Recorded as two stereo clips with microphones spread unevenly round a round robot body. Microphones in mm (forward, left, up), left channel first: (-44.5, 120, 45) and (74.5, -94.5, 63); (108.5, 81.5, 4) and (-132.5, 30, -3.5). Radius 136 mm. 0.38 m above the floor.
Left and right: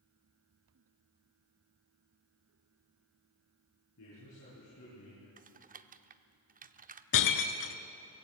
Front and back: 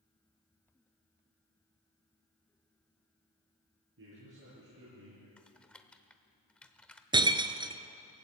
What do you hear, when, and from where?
4.0 s a man speaking: 155° left, 8.5 m
5.4 s typing on a keyboard: 70° right, 0.8 m
7.1 s breaking glass: 120° left, 1.2 m